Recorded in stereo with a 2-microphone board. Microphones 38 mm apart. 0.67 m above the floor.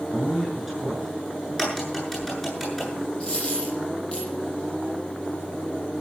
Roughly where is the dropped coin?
Left.